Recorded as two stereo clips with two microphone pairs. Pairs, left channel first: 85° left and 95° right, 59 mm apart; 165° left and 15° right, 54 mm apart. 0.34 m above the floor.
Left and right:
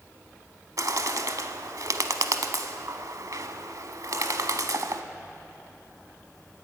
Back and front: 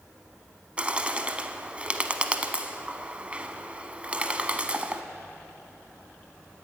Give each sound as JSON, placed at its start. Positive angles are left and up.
{"t": 0.8, "sound": "a bird", "azimuth_deg": -80, "distance_m": 0.7}